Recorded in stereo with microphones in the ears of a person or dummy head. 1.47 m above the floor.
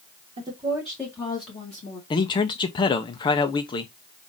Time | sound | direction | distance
0.4 | a woman speaking | 30° right (ahead or behind) | 1.2 m
2.1 | a man speaking | 25° left (ahead or behind) | 0.6 m